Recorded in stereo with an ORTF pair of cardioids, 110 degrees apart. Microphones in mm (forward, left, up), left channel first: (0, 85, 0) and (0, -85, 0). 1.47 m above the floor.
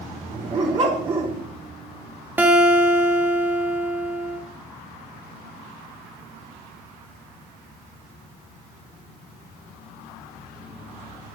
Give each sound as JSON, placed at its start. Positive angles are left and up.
{"t": 0.3, "sound": "a dog barking", "azimuth_deg": -40, "distance_m": 2.5}
{"t": 2.4, "sound": "a guitar", "azimuth_deg": -10, "distance_m": 1.1}